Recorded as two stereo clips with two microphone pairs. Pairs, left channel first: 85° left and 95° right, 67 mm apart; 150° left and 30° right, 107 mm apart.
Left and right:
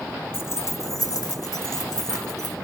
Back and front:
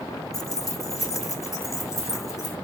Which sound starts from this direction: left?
Keys jangling, at 0.3 s.